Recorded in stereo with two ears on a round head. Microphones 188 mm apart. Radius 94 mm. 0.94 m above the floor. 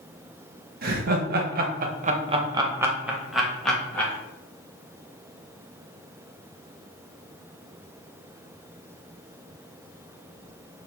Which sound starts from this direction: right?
Laughter, at 0.8 s.